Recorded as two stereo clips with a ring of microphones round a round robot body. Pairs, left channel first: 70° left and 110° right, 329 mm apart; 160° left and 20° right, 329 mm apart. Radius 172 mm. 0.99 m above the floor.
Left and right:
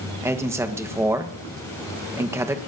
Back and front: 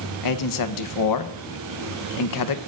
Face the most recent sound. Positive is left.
turn(degrees=165)